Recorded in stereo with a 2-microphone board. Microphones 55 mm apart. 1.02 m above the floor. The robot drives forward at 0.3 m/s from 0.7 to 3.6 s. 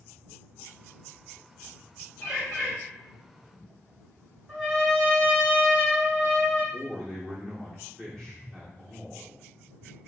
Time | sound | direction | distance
2.2 | a bird | 10° left (ahead or behind) | 2 m
4.5 | a trumpet | centre (ahead or behind) | 1.8 m
6.7 | a man speaking | 10° left (ahead or behind) | 1.0 m